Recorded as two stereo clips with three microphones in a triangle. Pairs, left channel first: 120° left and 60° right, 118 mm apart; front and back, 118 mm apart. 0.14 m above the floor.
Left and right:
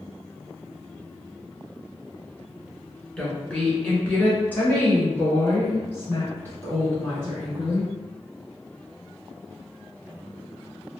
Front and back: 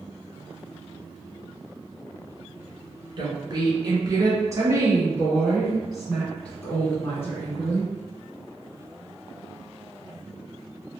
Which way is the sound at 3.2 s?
165° right.